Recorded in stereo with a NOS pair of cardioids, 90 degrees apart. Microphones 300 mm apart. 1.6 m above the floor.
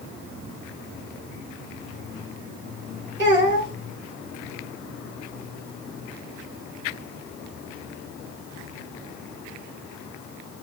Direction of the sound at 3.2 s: 30° right.